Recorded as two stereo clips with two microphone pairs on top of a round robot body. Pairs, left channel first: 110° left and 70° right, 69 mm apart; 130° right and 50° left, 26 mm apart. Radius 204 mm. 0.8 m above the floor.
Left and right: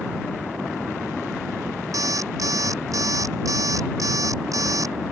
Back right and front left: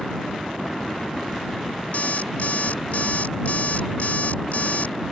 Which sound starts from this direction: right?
An alarm clock, at 1.9 s.